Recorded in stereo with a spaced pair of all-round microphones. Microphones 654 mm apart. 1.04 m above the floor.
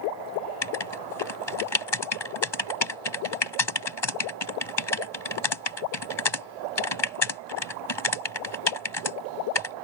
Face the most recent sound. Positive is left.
turn(degrees=40)  # may be behind; listen again after turning